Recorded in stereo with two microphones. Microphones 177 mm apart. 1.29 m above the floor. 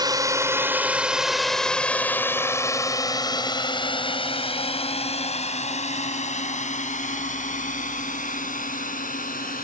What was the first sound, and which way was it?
A drone, 20° right (ahead or behind).